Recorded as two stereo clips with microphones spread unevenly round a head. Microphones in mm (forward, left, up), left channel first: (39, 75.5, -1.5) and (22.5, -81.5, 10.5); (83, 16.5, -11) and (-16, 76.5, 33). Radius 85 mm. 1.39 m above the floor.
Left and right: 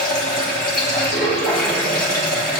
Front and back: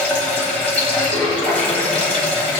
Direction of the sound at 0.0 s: 55° left.